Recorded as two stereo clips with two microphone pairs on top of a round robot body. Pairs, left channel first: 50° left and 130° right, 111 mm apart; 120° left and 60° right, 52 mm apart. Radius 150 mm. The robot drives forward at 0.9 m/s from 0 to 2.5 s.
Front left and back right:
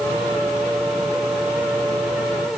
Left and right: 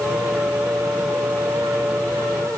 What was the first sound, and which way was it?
Only background noise.